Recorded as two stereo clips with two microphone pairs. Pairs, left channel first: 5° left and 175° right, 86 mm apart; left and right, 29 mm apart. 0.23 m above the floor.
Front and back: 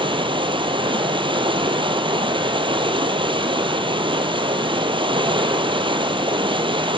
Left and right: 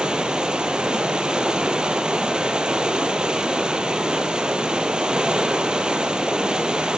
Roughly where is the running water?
Behind right.